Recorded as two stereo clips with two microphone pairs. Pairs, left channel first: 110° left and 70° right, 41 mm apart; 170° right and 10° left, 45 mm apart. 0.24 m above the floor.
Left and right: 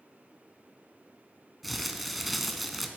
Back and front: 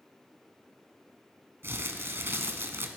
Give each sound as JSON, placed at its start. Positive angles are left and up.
{"t": 1.6, "sound": "crumpling", "azimuth_deg": 15, "distance_m": 0.7}